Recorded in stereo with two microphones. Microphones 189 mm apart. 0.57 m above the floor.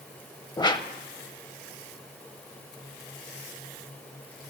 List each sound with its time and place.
0.6 s a whoosh: 25° left (ahead or behind), 0.5 m